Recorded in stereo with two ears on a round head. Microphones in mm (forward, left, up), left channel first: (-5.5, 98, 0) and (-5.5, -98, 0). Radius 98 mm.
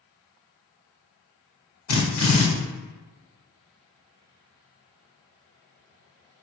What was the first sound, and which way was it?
A drill, 70° left (ahead or behind).